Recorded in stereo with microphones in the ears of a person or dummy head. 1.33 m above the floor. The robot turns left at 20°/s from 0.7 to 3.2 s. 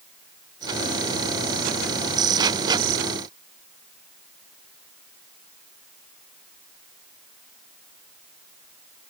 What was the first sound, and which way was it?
Only background noise.